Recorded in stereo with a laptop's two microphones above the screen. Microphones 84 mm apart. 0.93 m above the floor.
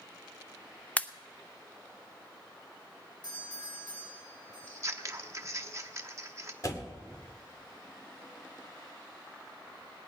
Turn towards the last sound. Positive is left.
turn(degrees=45)  # may be behind; listen again after turning